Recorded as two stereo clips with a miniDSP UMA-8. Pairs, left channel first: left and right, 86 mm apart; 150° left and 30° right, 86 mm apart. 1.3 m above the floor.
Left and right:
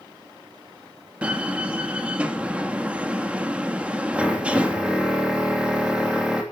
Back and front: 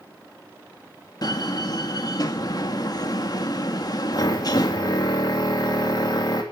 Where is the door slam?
165° right, 1.6 m.